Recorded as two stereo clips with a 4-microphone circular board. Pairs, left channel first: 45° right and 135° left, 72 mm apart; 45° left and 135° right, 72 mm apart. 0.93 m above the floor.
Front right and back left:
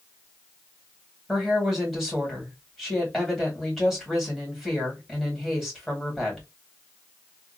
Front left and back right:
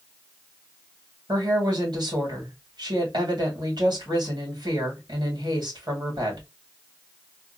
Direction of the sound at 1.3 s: 140° right.